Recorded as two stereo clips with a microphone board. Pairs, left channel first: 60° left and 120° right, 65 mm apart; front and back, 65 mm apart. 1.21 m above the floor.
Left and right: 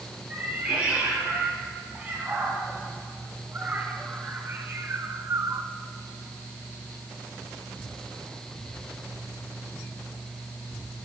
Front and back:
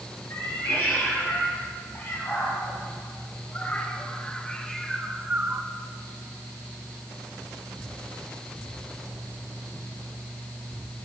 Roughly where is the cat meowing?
Ahead right.